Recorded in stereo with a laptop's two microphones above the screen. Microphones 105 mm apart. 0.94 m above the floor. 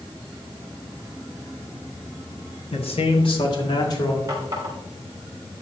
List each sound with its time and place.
2.7 s a man speaking: 65° left (ahead or behind), 1.6 m; by 4.2 s 40° left (ahead or behind), 3 m
4.3 s a running tap: 30° right (ahead or behind), 3 m